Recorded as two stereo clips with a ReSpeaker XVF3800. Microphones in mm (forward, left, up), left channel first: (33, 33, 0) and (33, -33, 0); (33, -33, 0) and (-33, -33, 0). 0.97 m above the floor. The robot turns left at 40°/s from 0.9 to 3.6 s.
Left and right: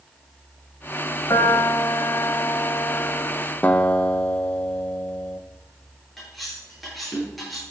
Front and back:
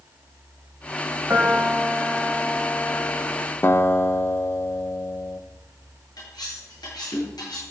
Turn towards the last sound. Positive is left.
turn(degrees=0)